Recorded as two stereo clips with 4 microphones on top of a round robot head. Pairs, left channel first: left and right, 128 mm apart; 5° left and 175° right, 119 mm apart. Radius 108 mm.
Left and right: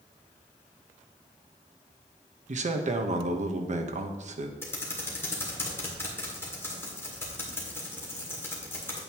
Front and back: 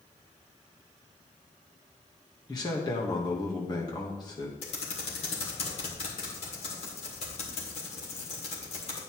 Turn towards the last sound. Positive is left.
turn(degrees=20)